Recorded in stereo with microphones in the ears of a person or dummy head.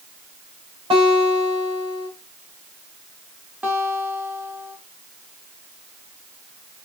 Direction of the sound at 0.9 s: 20° right (ahead or behind).